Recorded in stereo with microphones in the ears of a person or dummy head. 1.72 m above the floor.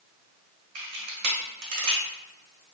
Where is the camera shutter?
60° right (ahead or behind), 1.0 m.